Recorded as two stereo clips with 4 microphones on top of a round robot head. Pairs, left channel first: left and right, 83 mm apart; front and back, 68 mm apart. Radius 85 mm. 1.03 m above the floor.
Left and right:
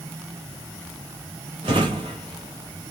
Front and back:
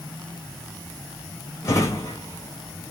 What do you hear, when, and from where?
1.6 s a drawer: 55° right, 1.7 m